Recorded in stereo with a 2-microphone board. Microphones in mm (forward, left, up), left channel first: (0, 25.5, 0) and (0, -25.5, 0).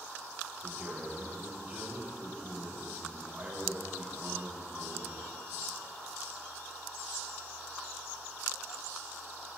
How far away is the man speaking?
About 3.5 m.